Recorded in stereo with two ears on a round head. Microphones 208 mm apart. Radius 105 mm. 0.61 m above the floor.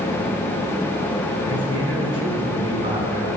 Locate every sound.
1.5 s a man speaking: 25° right (ahead or behind), 6.5 m